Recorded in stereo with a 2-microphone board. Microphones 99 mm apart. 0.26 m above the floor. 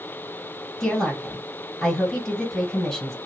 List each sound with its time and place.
0.8 s a woman speaking: 5° left (ahead or behind), 1.8 m